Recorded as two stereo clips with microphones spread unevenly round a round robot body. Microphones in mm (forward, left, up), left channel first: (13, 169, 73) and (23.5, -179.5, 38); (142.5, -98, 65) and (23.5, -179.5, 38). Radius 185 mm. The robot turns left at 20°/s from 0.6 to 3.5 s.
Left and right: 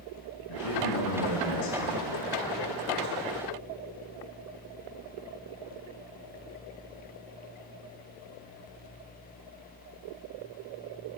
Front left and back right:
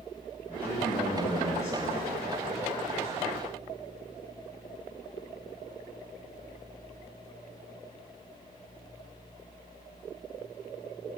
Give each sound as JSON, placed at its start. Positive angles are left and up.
{"t": 0.5, "sound": "a man speaking", "azimuth_deg": 120, "distance_m": 7.5}